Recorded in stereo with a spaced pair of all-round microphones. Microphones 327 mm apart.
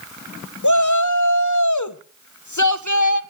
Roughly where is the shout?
Left.